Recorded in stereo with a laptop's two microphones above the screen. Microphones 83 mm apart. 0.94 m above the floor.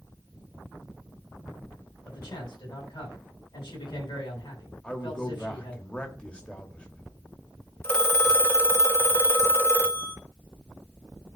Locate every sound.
2.0 s a man speaking: 60° left (ahead or behind), 6.5 m
4.8 s a man speaking: 15° left (ahead or behind), 1.4 m
7.8 s a phone ringing: 30° left (ahead or behind), 1.2 m